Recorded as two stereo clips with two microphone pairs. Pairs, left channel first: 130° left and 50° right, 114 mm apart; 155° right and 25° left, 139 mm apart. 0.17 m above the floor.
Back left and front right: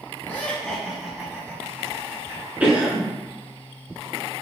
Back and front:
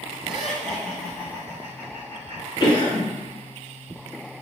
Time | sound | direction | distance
0.2 | laughter | 115° left | 1.4 m
2.6 | a cough | 120° right | 1.6 m